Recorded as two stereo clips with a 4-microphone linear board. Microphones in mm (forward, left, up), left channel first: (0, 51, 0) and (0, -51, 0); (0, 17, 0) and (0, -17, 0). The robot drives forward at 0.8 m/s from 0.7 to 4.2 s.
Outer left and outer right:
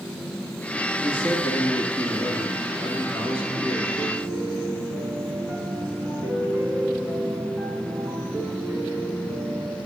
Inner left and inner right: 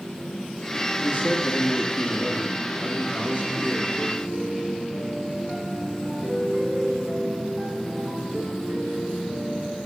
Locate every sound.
1.0 s a man speaking: 60° left (ahead or behind), 3 m; by 3.9 s 50° left (ahead or behind), 3.5 m
4.0 s a piano: 5° right (ahead or behind), 1.0 m